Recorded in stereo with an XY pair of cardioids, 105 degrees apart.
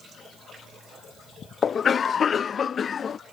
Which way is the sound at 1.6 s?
45° left.